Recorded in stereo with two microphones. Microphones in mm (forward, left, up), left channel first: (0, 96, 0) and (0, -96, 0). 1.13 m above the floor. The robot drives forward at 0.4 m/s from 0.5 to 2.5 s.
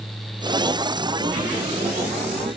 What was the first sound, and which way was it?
Only background noise.